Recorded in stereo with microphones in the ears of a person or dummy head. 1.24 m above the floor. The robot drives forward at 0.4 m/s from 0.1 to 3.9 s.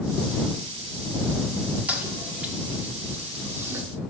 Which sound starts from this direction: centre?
A toilet flushing, at 1.9 s.